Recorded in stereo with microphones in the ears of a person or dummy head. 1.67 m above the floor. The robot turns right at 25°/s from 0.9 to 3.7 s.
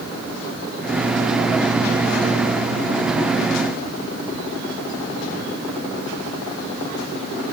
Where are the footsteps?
I don't hear footsteps.